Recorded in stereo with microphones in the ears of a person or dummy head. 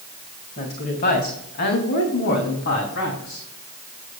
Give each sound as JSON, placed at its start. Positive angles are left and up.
{"t": 0.6, "sound": "a woman speaking", "side_deg": 35, "distance_m": 2.5}